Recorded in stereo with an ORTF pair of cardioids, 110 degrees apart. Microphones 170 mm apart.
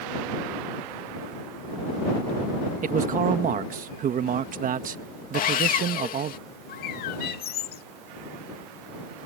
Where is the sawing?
55° left.